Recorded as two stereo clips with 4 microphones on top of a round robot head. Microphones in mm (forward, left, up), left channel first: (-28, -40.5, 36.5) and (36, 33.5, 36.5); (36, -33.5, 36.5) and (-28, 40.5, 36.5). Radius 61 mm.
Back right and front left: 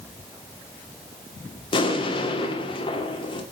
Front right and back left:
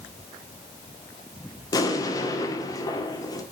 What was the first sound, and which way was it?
An explosion, 100° right.